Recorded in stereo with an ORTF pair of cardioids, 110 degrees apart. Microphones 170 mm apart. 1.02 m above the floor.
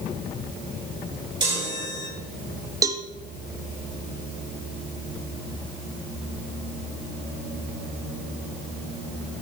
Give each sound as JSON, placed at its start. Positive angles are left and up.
{"t": 1.4, "sound": "a chime", "azimuth_deg": -25, "distance_m": 5.5}
{"t": 2.8, "sound": "a cowbell", "azimuth_deg": -20, "distance_m": 0.7}